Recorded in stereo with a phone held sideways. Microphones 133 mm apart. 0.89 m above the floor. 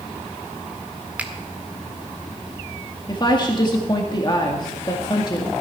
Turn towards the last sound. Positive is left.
turn(degrees=35)  # may be behind; listen again after turning